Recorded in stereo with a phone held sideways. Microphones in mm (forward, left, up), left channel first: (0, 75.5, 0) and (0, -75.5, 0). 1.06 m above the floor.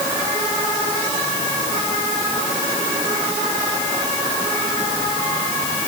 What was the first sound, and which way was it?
Only background noise.